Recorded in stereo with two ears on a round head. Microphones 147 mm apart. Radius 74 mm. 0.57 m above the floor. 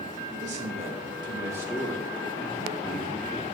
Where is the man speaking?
50° right (ahead or behind), 1.7 m; by 3.4 s 35° left (ahead or behind), 1.8 m.